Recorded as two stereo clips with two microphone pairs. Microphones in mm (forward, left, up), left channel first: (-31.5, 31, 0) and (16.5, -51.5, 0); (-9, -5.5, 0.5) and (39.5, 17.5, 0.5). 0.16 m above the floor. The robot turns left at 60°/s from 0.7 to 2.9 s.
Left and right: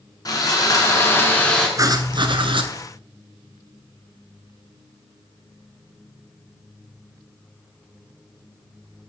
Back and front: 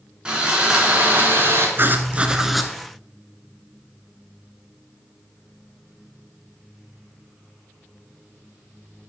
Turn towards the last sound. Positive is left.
turn(degrees=-80)